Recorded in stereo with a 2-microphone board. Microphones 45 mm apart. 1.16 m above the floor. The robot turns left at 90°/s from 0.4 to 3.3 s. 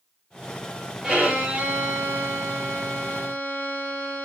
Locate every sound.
1.0 s a violin: 25° right, 1.1 m; by 4.2 s 130° left, 1.1 m